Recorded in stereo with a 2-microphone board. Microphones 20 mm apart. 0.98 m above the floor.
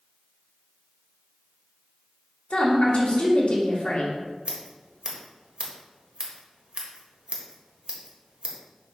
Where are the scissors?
65° right (ahead or behind), 1.4 m.